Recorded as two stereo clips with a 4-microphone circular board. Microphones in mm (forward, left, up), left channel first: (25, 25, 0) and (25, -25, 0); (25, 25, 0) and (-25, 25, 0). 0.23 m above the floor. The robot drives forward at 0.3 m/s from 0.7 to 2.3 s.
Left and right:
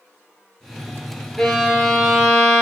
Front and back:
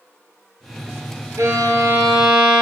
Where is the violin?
175° left, 0.6 m.